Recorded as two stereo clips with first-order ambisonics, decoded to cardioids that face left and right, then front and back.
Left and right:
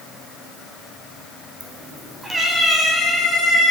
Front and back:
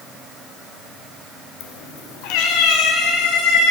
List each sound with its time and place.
1.6 s a cat meowing: 25° right, 0.7 m; by 3.7 s 5° right, 3.5 m